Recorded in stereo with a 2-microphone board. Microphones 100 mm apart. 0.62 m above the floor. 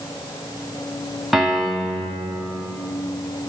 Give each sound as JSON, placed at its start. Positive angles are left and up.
{"t": 1.3, "sound": "a piano", "side_deg": 0, "distance_m": 1.5}